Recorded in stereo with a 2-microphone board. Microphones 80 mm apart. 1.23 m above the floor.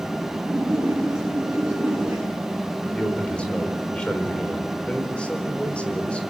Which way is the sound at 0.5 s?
10° right (ahead or behind).